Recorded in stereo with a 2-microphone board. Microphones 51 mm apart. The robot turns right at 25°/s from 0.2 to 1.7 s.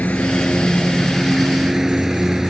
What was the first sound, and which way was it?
A lawn mower, 150° left.